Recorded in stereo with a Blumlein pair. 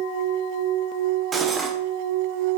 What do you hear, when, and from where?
1.3 s cutlery clinking: 20° right, 1.7 m